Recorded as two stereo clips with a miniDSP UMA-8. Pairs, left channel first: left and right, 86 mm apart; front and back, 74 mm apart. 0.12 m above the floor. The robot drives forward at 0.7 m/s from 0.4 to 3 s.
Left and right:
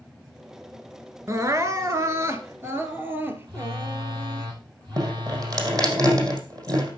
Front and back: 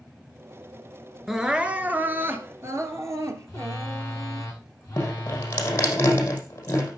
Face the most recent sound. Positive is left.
turn(degrees=-55)